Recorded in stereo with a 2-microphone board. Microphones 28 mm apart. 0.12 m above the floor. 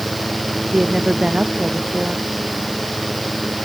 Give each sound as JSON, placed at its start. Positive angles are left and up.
{"t": 0.7, "sound": "a woman speaking", "side_deg": -30}